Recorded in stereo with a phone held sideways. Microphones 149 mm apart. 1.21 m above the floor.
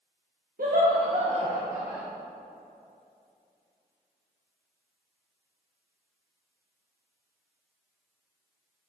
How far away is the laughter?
About 1.0 m.